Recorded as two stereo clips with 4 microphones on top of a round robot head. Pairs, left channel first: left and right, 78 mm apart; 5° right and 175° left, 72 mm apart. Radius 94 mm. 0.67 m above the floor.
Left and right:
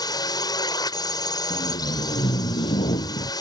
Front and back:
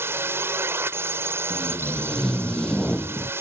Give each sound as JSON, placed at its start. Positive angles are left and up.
{"t": 0.0, "sound": "a drone", "azimuth_deg": 120}
{"t": 1.5, "sound": "tape being pulled", "azimuth_deg": 75}